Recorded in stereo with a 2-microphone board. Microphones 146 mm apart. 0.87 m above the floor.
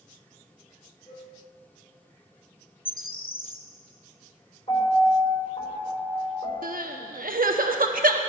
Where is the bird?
85° left, 0.6 m.